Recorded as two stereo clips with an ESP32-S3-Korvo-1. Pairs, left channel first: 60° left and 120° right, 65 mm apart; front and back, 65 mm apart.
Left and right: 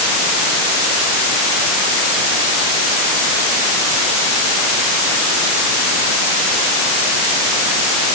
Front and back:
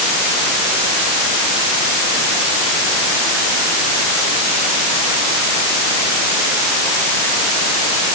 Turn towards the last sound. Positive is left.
No sound to turn to.